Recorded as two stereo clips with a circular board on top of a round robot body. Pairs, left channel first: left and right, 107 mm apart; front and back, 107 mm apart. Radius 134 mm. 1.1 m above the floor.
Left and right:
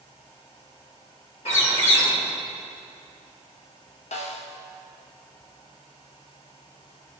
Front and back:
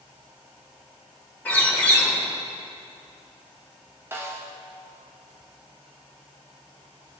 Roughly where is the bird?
Left.